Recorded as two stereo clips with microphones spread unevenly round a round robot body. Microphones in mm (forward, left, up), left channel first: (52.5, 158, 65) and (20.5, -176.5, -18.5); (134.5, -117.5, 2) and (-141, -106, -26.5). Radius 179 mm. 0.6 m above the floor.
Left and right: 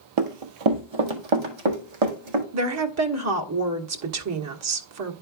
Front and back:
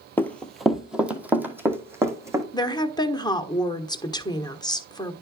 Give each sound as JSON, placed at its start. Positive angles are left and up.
{"t": 0.2, "sound": "running footsteps", "azimuth_deg": -80, "distance_m": 0.9}
{"t": 2.5, "sound": "a woman speaking", "azimuth_deg": -80, "distance_m": 1.4}